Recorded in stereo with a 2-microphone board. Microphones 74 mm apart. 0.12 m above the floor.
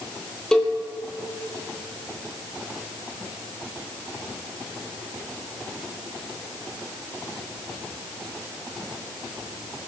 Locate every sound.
0.5 s a cowbell: 10° left (ahead or behind), 1.9 m